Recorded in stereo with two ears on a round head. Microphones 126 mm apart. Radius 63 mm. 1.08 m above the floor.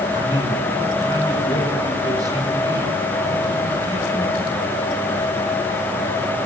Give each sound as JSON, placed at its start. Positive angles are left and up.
{"t": 0.1, "sound": "a man speaking", "side_deg": -25, "distance_m": 9.5}